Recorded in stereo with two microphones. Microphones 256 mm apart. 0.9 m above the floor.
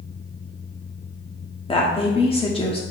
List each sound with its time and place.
1.7 s a woman speaking: 20° left (ahead or behind), 1.5 m